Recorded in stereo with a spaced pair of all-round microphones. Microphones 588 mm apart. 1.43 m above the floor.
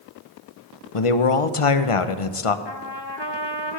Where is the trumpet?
45° left (ahead or behind), 1.0 m.